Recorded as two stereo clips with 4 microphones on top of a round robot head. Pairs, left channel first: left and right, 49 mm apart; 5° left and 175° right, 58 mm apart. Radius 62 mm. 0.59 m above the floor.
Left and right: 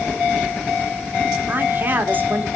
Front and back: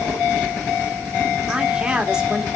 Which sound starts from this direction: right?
A woman speaking, at 1.5 s.